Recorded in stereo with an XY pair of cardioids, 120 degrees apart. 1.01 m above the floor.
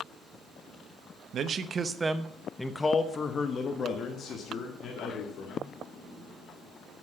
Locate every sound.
1.3 s a man speaking: 50° right, 0.9 m; by 5.7 s 65° left, 2.5 m